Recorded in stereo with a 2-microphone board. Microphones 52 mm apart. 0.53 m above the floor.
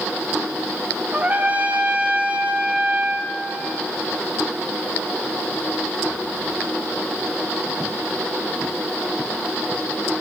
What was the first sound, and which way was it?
A trumpet, 30° right (ahead or behind).